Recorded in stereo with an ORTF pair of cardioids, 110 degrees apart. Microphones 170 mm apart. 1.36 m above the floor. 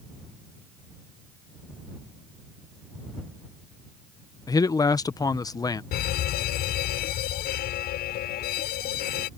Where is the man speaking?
20° left.